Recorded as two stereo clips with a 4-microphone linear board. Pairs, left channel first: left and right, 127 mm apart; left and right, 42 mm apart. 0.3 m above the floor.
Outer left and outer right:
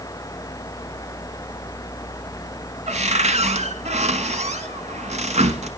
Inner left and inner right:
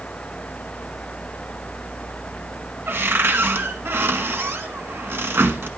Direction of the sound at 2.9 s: 70° right (ahead or behind).